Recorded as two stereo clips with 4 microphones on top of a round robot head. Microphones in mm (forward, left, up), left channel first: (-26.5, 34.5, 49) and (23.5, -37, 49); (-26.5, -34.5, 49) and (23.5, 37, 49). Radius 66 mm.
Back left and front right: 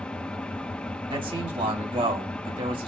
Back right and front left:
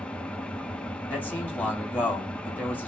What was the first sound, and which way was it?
An engine running, straight behind.